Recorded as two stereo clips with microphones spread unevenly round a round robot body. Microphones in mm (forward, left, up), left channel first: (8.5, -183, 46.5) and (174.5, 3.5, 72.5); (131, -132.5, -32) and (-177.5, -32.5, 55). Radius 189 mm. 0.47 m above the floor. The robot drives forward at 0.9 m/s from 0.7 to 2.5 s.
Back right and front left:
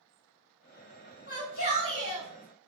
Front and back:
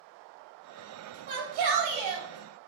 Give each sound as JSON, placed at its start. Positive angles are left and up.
{"t": 1.3, "sound": "a shout", "azimuth_deg": 175, "distance_m": 2.5}